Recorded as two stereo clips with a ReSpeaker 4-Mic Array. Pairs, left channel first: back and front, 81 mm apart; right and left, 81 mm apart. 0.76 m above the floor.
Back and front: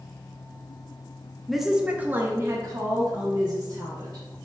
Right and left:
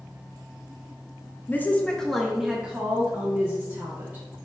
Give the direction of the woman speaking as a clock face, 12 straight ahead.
3 o'clock.